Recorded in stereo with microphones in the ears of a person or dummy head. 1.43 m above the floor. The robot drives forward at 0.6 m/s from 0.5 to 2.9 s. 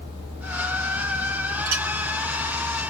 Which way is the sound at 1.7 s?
60° right (ahead or behind).